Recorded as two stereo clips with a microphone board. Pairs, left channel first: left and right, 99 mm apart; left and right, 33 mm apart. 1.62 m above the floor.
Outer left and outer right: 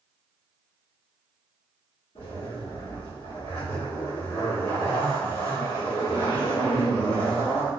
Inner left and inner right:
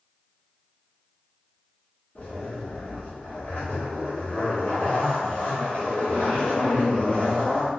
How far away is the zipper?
About 1.5 m.